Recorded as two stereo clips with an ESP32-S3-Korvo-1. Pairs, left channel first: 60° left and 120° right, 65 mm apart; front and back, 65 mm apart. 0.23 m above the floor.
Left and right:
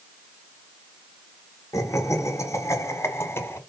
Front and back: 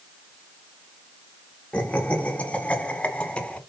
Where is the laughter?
65° left, 2.5 m; by 3.6 s 60° left, 1.9 m.